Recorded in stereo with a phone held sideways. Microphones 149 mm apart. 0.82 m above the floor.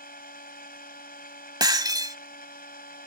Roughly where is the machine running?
Left.